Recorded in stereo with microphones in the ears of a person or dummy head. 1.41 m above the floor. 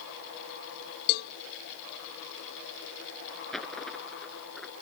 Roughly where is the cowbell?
Left.